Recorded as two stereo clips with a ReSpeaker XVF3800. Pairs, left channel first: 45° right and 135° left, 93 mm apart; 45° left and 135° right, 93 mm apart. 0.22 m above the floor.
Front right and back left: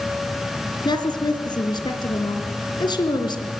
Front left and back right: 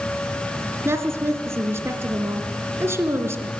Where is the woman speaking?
75° right, 2.5 m.